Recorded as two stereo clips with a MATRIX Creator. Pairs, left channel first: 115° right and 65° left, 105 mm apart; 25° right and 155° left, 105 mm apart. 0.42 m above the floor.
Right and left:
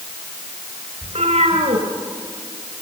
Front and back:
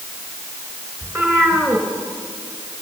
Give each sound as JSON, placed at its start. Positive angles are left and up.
{"t": 1.0, "sound": "a cat meowing", "azimuth_deg": 85, "distance_m": 3.5}